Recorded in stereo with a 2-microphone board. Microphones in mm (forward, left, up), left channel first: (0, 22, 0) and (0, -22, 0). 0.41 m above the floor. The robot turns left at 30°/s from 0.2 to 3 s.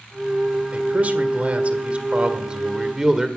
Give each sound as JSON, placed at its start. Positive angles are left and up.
{"t": 0.7, "sound": "a man speaking", "azimuth_deg": -90, "distance_m": 1.6}